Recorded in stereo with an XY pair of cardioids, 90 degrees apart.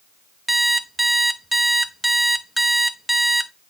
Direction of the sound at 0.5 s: 10° right.